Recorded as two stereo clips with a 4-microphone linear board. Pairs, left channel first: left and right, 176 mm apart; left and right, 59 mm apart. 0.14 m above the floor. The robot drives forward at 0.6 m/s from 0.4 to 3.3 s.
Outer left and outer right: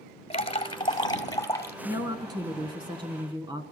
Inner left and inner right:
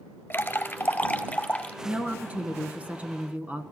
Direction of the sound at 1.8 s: 20° right (ahead or behind).